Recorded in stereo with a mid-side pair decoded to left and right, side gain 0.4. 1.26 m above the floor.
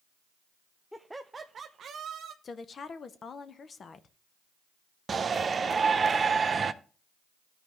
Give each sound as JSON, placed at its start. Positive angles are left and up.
{"t": 0.9, "sound": "laughter", "azimuth_deg": 5, "distance_m": 0.6}
{"t": 2.4, "sound": "a woman speaking", "azimuth_deg": 50, "distance_m": 0.9}
{"t": 5.1, "sound": "a shout", "azimuth_deg": -40, "distance_m": 0.7}